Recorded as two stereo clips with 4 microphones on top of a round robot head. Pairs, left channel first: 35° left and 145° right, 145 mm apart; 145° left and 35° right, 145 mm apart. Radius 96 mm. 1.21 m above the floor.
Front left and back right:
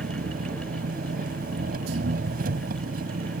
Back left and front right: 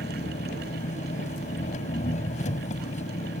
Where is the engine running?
170° right.